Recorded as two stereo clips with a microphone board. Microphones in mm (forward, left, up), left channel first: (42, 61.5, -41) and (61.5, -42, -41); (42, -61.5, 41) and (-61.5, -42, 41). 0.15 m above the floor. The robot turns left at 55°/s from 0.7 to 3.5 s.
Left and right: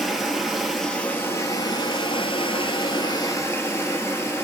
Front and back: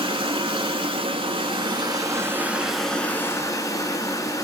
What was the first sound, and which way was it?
Running water, 165° right.